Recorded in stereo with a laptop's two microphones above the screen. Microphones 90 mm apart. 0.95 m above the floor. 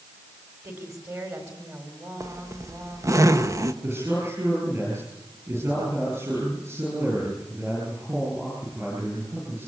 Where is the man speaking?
30° right (ahead or behind), 8.5 m.